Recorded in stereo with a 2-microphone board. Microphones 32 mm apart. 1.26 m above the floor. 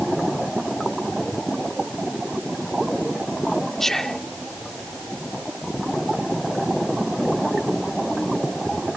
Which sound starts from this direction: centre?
Whispering, at 3.8 s.